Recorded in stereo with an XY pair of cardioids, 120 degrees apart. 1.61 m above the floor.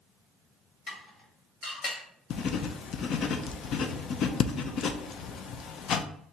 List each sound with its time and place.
0.9 s dishes clattering: 60° left, 1.8 m
2.3 s writing: 60° left, 0.6 m